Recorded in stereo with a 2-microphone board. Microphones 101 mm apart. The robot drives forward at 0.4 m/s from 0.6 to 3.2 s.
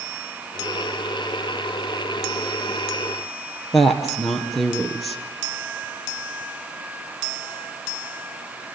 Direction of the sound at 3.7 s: Centre (ahead or behind).